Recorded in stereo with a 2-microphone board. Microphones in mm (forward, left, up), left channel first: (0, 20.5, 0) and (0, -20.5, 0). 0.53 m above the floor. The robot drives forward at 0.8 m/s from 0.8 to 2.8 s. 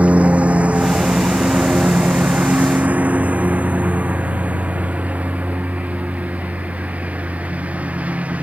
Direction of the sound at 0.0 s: 35° right (ahead or behind).